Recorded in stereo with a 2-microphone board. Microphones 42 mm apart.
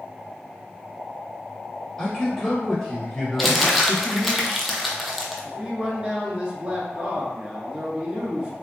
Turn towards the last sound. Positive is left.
turn(degrees=-25)  # may be behind; listen again after turning